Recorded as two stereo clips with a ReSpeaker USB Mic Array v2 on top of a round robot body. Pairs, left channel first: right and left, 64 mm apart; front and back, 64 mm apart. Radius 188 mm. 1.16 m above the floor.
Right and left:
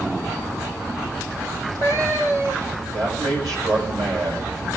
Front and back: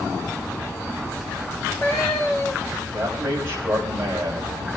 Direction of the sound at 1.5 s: 50° left.